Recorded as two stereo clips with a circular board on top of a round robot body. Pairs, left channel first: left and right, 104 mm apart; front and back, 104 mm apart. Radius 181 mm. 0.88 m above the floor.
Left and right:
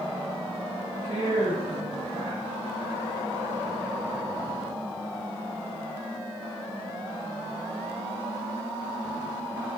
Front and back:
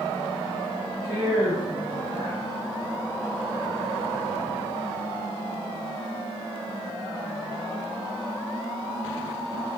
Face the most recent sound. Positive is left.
turn(degrees=-90)